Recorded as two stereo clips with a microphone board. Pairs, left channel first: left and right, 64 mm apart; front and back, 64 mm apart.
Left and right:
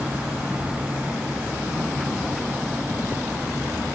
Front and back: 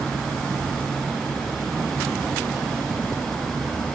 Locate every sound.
Only background noise.